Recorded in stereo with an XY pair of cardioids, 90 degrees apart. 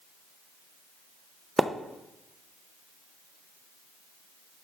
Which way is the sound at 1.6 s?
10° right.